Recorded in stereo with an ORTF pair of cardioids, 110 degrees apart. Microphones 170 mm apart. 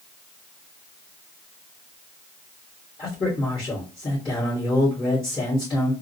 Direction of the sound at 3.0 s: 30° left.